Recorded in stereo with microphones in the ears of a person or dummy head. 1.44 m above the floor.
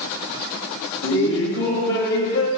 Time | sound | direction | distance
1.0 | laughter | 75° left (ahead or behind) | 2 m